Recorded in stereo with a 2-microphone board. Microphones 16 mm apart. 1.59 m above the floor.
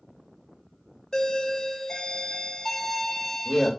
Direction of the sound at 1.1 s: 30° left (ahead or behind).